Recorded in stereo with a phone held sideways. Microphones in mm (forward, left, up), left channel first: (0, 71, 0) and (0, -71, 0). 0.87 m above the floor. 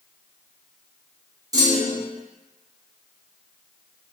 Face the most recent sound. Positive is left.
turn(degrees=-25)  # may be behind; listen again after turning